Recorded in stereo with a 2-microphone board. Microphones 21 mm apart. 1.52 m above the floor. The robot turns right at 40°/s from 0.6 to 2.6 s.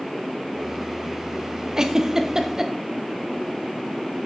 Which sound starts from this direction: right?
A giggle, at 1.8 s.